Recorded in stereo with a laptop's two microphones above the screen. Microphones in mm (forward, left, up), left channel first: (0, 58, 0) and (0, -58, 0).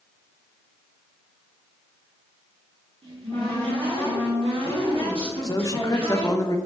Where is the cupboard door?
60° right (ahead or behind), 1.3 m.